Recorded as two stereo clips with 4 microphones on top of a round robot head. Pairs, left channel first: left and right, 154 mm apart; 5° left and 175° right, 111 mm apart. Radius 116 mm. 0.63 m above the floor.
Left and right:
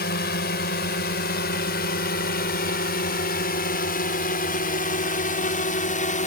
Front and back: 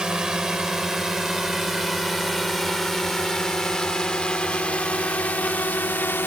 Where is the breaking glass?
No breaking glass in this recording.